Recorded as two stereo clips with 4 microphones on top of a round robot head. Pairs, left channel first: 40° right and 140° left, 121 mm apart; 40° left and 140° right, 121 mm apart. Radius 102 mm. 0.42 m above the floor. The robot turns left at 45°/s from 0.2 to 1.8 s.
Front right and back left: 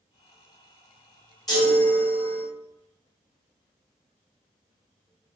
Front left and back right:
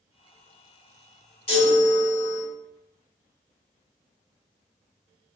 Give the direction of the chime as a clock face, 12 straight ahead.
12 o'clock.